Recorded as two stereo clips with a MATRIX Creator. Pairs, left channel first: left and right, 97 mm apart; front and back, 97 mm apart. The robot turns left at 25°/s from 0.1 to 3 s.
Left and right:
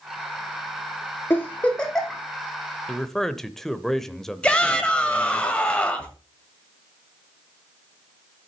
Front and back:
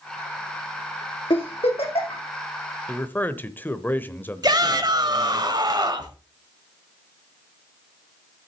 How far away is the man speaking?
About 0.8 m.